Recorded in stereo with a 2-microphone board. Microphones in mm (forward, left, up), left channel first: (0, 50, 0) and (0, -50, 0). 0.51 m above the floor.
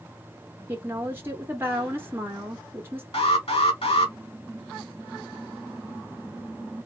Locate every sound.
0.7 s a woman speaking: 20° right (ahead or behind), 0.7 m
3.1 s an alarm: 70° left (ahead or behind), 1.6 m